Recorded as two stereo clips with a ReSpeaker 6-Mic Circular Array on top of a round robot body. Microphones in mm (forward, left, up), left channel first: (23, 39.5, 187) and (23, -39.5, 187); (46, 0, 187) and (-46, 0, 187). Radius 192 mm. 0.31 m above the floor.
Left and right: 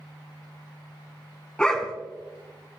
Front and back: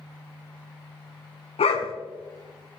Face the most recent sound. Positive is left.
turn(degrees=10)